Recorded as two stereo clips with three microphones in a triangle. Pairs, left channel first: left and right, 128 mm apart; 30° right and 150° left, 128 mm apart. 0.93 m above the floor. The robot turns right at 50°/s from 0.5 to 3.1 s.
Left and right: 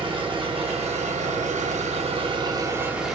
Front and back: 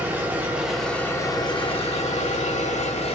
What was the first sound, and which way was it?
An engine running, 135° right.